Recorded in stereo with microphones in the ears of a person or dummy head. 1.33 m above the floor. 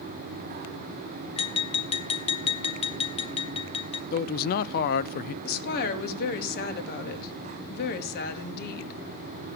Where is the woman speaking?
55° left (ahead or behind), 2 m.